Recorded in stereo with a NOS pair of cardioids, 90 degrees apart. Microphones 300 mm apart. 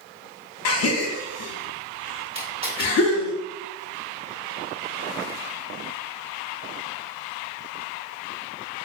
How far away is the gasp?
About 0.6 m.